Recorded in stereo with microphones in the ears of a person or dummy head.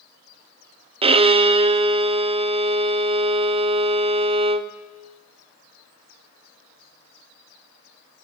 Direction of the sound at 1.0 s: 30° right (ahead or behind).